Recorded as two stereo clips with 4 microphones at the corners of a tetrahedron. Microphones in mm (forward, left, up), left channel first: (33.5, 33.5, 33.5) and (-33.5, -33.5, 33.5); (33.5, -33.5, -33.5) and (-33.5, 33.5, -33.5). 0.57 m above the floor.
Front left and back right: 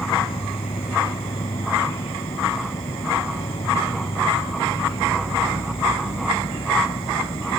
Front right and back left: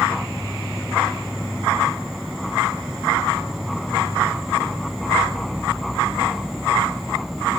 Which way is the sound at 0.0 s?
45° left.